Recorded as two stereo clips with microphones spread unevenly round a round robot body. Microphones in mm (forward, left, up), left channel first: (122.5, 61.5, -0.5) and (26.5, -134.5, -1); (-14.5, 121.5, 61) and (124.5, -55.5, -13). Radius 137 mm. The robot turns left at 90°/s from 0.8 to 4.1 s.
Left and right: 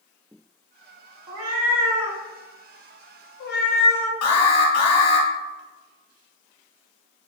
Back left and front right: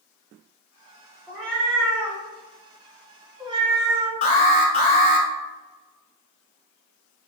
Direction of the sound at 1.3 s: 135° right.